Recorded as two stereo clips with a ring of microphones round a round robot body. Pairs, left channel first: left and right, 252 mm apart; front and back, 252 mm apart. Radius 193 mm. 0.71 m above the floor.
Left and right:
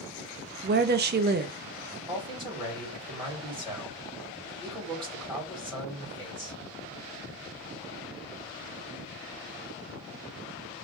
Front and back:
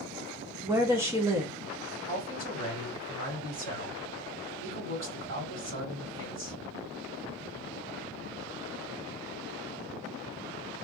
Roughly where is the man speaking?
Behind.